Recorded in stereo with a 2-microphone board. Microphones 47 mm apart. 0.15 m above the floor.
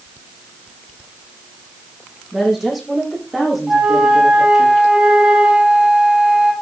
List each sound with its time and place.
2.3 s a woman speaking: 10° right (ahead or behind), 8.5 m; by 4.7 s centre (ahead or behind), 8 m
3.7 s a flute: 20° right (ahead or behind), 3 m